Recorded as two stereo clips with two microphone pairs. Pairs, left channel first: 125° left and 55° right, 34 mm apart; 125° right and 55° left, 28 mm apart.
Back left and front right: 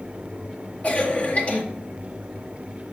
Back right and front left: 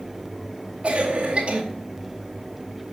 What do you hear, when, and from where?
0.8 s a cough: 85° left, 1.8 m